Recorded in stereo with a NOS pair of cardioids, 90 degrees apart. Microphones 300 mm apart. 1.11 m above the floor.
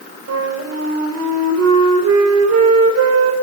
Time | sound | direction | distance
0.3 | a flute | 60° right | 5 m